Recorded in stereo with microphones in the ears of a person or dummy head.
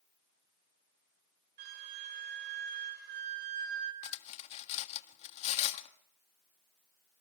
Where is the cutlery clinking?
35° left (ahead or behind), 1.6 m.